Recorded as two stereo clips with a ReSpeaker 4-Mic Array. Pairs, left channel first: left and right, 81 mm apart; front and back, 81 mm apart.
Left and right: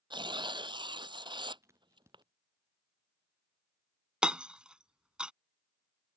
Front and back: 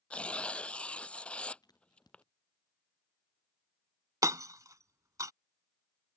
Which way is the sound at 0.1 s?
75° right.